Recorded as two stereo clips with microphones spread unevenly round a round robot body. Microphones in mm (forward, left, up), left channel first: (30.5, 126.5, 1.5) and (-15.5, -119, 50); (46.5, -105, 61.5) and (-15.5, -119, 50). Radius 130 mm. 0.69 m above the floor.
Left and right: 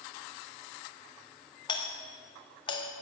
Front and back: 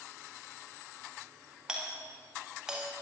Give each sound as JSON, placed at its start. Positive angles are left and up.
{"t": 1.7, "sound": "a doorbell", "azimuth_deg": 130, "distance_m": 1.7}